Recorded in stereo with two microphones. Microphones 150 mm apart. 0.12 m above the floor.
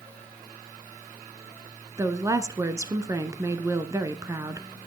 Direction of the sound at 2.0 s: 20° right (ahead or behind).